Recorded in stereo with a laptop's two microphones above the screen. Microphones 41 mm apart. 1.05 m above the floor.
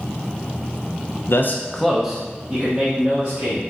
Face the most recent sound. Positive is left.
turn(degrees=-30)  # may be behind; listen again after turning